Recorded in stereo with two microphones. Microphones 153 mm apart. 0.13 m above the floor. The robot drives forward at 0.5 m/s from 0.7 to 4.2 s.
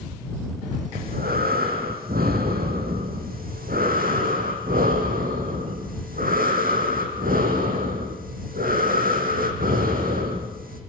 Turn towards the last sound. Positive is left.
turn(degrees=-70)  # may be behind; listen again after turning